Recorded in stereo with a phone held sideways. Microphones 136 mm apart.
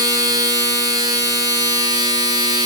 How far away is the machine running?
About 1.1 m.